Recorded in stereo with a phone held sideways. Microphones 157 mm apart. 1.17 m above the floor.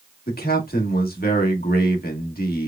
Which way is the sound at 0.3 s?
75° left (ahead or behind).